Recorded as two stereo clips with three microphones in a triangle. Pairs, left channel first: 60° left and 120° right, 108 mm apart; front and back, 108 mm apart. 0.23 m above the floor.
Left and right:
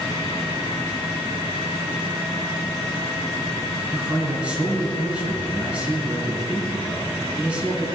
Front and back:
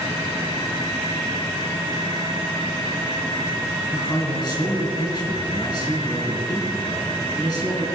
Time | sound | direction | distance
3.9 | a man speaking | 45° right | 3 m